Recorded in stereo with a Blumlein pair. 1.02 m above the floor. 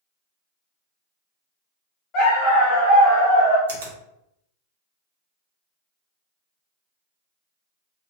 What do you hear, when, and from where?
2.1 s a dog barking: 30° left, 1.6 m; by 3.6 s 65° left, 1.0 m
3.7 s a finger snap: 60° right, 1.0 m